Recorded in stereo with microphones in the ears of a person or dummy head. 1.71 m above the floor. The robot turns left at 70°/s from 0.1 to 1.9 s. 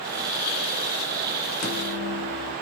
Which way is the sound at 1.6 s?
60° left (ahead or behind).